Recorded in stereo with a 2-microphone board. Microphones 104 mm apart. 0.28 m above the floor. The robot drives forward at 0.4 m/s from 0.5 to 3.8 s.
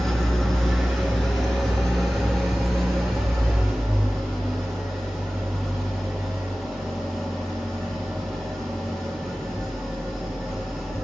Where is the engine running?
5° left (ahead or behind), 2.5 m; by 11.0 s centre (ahead or behind), 3.5 m.